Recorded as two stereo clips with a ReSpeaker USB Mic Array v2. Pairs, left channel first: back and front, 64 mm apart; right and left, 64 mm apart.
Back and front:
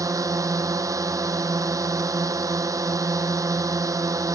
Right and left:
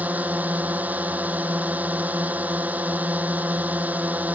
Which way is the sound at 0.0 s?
25° left.